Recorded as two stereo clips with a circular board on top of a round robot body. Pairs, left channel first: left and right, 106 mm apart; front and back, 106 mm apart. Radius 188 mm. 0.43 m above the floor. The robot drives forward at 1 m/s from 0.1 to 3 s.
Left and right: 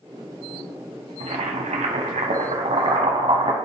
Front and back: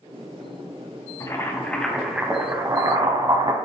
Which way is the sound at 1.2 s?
60° right.